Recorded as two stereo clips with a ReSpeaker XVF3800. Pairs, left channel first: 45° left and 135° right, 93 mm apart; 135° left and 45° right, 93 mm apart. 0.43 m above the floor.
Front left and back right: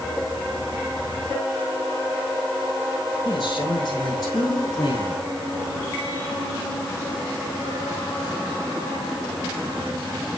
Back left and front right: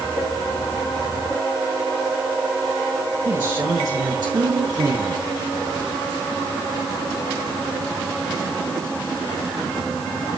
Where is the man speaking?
5° left, 6.5 m; by 5.2 s 5° right, 6.5 m.